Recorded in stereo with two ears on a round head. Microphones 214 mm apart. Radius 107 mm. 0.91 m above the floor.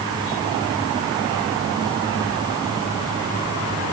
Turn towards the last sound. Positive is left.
No sound to turn to.